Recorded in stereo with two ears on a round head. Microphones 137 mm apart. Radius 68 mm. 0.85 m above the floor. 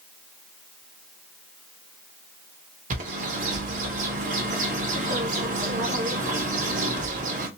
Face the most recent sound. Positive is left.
turn(degrees=-55)  # may be behind; listen again after turning